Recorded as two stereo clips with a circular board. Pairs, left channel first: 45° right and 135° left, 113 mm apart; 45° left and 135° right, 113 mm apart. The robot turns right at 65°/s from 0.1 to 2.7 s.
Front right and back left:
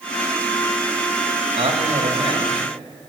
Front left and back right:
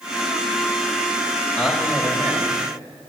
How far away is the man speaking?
About 2 m.